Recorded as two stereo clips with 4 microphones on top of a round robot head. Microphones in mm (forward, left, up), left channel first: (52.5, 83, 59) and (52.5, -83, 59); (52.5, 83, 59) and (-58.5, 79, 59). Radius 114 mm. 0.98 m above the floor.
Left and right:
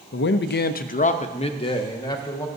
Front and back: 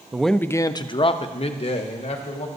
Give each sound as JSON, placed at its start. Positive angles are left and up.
{"t": 0.1, "sound": "a man speaking", "azimuth_deg": 100, "distance_m": 0.5}